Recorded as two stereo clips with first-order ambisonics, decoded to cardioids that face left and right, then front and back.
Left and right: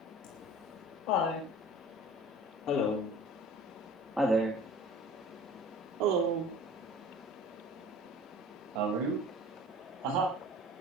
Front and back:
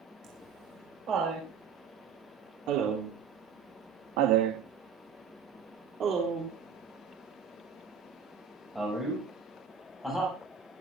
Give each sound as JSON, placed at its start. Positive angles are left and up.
{"t": 0.2, "sound": "laughter", "azimuth_deg": 120, "distance_m": 7.0}